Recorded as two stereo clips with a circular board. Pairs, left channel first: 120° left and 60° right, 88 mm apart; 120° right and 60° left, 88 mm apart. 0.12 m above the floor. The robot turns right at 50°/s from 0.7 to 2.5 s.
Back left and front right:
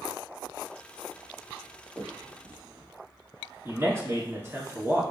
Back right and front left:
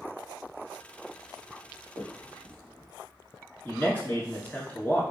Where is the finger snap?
85° right, 1.1 m; by 2.9 s 55° right, 1.1 m.